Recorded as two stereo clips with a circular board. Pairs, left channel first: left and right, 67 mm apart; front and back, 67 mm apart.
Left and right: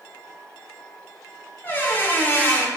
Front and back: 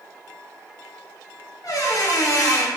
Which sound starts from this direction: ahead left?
A squeak, at 1.6 s.